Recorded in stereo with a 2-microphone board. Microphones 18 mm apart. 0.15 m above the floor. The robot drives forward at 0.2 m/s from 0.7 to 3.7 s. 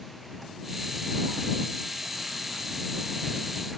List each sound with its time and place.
Only background noise.